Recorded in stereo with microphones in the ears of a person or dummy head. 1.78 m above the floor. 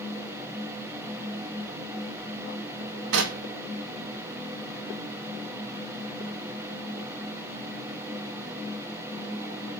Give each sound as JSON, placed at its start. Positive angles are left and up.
{"t": 3.1, "sound": "knocking", "side_deg": -70, "distance_m": 3.0}